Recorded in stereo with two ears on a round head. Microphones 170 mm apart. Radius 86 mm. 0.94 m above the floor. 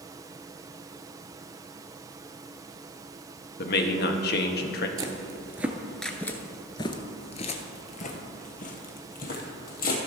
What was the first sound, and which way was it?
A man speaking, 55° left (ahead or behind).